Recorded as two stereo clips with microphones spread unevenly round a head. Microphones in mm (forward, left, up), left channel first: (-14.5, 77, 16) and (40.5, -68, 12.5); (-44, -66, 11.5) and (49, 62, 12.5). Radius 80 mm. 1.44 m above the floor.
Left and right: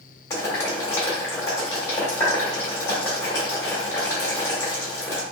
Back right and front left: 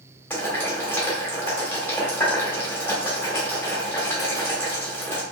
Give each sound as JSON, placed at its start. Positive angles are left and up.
{"t": 0.3, "sound": "boiling", "azimuth_deg": 170, "distance_m": 1.2}